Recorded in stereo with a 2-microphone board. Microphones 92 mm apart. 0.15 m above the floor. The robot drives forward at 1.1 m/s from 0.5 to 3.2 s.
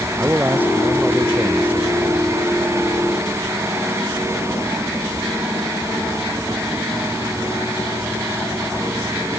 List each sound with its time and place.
0.2 s a man speaking: 20° right (ahead or behind); by 2.4 s 15° right (ahead or behind)